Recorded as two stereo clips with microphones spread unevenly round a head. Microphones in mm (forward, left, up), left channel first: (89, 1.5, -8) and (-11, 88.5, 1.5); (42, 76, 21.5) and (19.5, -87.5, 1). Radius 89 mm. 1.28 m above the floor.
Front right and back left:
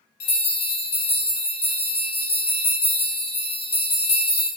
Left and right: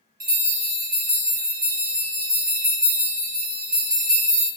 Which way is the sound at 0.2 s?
70° right.